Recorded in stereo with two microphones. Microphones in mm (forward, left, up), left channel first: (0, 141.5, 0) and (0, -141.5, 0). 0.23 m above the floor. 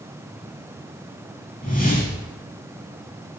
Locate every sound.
1.6 s a whoosh: 30° left (ahead or behind), 5.5 m